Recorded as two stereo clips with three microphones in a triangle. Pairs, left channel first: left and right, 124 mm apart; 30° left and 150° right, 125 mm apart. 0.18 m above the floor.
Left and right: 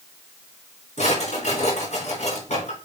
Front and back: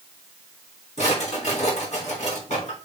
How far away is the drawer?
About 5 m.